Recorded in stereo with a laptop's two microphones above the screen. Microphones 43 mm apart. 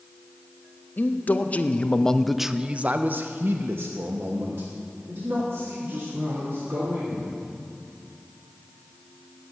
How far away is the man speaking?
About 1.0 m.